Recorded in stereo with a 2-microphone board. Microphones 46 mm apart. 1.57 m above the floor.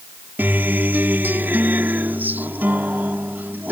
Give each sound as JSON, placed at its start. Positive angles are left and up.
{"t": 0.4, "sound": "a guitar", "side_deg": -45}